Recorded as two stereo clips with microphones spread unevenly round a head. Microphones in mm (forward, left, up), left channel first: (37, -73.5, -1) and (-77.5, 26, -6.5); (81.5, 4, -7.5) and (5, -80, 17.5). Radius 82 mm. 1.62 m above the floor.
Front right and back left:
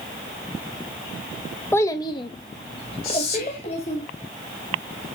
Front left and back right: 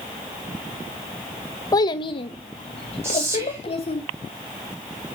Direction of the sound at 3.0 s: 65° right.